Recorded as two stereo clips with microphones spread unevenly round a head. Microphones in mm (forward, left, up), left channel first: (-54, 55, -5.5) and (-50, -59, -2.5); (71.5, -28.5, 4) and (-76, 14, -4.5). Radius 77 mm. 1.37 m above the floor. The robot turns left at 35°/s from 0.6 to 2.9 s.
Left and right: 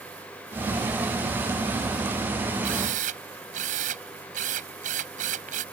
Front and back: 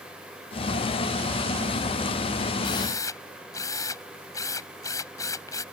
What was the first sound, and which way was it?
A drill, 75° right.